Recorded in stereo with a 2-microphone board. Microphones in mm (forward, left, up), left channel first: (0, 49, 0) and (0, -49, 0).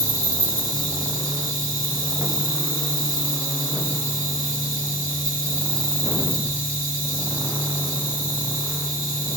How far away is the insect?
About 2 m.